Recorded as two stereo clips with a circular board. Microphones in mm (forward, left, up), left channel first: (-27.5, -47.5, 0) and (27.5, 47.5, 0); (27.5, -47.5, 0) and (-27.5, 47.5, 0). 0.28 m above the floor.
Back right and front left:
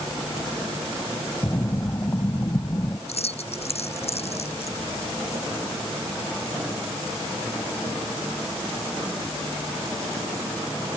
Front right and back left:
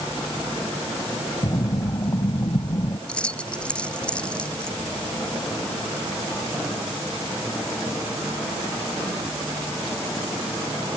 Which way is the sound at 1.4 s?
70° right.